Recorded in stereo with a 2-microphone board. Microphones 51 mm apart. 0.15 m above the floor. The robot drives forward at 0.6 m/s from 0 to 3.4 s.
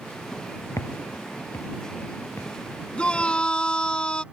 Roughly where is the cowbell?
No cowbell in this recording.